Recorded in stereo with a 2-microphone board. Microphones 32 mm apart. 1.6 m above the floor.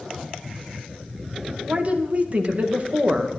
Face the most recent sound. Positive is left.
turn(degrees=-40)  # may be behind; listen again after turning